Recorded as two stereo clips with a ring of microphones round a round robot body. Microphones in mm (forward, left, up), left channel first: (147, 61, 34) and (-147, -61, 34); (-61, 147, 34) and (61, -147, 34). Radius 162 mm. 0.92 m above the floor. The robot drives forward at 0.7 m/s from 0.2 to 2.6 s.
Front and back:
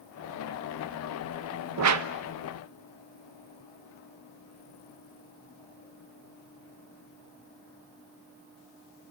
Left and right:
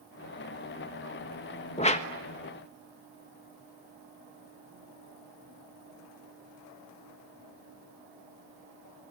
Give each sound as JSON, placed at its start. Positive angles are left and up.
{"t": 1.8, "sound": "a whoosh", "azimuth_deg": 180, "distance_m": 1.2}